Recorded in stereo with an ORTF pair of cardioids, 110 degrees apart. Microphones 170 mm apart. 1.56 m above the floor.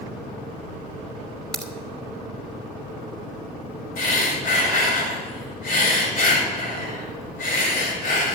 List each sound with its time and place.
1.5 s a crack: 5° left, 2.5 m
4.0 s breathing: 60° left, 5.5 m